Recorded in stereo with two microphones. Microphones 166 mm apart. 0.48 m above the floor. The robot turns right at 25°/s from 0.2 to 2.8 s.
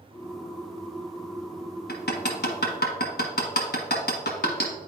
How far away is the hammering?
About 1.1 m.